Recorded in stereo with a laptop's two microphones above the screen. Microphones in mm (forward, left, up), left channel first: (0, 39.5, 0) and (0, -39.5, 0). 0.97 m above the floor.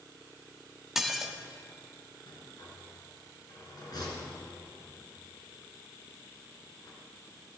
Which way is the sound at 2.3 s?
55° left (ahead or behind).